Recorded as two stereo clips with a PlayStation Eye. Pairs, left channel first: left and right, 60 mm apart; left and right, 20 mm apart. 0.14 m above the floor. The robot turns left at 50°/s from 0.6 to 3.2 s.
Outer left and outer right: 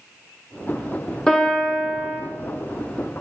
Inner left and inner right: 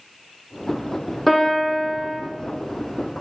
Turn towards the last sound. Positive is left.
turn(degrees=-85)